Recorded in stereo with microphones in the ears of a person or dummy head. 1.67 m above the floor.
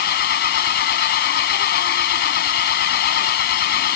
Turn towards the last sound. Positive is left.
turn(degrees=55)  # may be behind; listen again after turning